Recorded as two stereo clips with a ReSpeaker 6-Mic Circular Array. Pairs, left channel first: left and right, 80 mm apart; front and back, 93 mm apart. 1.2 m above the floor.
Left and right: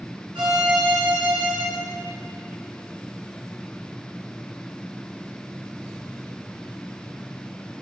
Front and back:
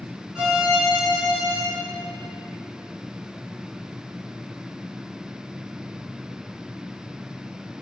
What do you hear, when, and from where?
0.3 s a violin: 100° right, 2 m